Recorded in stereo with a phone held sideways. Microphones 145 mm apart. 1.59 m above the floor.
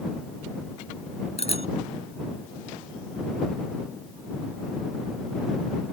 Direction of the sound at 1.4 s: 45° left (ahead or behind).